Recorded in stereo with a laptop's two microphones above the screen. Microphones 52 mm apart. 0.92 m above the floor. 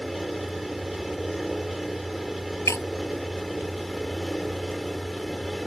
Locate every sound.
0.0 s a fan: 5° right (ahead or behind)
2.7 s breaking glass: 65° left (ahead or behind)